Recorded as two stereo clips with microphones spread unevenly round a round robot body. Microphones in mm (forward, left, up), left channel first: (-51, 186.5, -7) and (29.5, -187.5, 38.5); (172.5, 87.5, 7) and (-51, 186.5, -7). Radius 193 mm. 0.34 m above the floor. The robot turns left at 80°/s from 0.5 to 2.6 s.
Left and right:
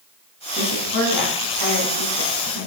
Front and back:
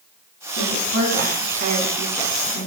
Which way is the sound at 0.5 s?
165° right.